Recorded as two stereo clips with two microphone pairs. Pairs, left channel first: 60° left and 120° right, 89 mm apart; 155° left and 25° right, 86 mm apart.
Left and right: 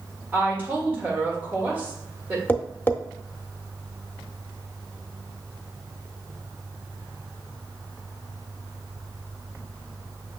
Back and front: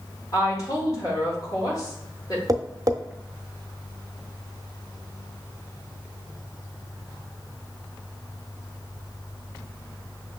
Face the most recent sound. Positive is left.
turn(degrees=0)